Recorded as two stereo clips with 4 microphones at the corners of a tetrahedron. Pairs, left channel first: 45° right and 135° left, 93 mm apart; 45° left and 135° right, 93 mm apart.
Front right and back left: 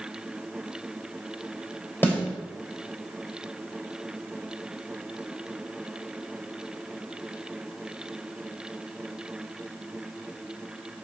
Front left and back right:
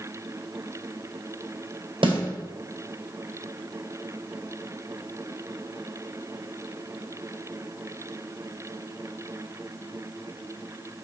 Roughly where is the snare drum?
Behind right.